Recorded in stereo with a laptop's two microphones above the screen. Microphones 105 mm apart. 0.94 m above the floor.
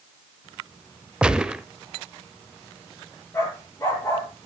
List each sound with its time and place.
1.2 s a gunshot: 10° right (ahead or behind), 0.7 m
3.3 s a dog barking: 25° left (ahead or behind), 9.5 m